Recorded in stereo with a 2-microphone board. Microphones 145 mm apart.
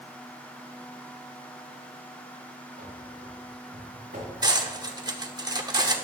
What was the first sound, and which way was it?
Running footsteps, 85° right.